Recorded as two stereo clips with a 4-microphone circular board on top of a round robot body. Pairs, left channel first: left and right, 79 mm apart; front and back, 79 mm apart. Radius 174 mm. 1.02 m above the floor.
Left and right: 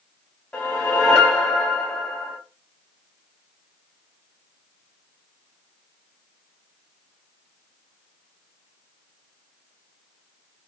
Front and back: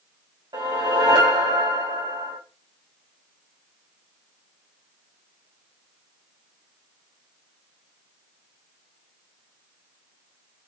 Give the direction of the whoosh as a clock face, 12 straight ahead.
7 o'clock.